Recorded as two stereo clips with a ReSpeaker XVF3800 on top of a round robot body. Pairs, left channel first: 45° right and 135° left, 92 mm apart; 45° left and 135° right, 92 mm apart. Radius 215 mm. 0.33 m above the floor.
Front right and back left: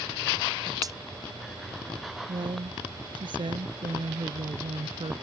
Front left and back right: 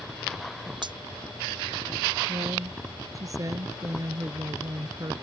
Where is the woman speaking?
170° left.